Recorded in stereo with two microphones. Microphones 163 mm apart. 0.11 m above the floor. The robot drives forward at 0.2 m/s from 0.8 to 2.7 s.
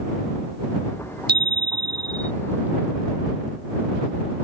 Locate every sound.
1.3 s a bicycle bell: 70° right (ahead or behind)